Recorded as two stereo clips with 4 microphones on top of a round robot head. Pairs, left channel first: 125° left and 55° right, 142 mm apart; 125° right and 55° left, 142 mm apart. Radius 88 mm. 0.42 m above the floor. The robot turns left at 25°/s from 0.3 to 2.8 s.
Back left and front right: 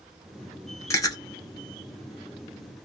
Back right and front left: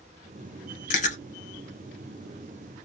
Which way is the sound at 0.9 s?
160° right.